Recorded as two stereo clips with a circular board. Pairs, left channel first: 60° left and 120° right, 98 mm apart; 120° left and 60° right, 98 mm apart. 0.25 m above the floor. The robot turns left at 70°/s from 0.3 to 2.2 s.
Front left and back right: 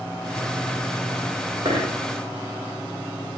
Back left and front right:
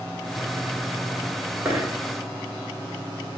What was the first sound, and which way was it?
A dropped coin, 135° right.